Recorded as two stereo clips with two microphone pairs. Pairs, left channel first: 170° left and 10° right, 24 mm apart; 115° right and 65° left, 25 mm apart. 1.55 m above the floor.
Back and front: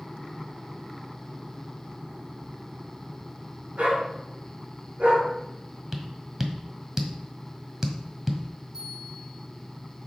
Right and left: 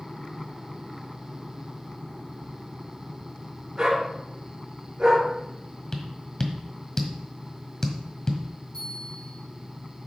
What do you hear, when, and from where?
3.8 s a dog barking: 10° left, 5 m
5.9 s tapping: 65° right, 1.6 m
8.7 s a bell: 65° right, 6.5 m